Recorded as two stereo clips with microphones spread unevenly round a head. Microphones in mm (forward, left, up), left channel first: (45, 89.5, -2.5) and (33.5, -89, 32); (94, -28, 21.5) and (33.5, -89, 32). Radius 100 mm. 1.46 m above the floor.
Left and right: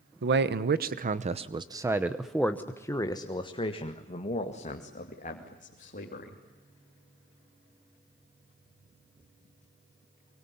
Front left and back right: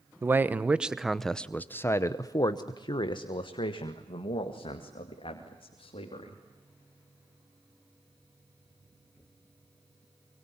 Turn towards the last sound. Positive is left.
turn(degrees=45)